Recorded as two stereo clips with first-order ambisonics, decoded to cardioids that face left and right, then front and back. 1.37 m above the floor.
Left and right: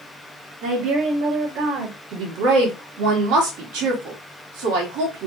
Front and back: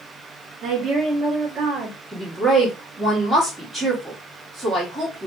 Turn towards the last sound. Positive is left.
turn(degrees=-90)